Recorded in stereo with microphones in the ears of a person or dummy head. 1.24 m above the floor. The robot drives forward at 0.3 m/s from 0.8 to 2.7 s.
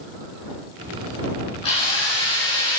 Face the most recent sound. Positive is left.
turn(degrees=20)  # may be behind; listen again after turning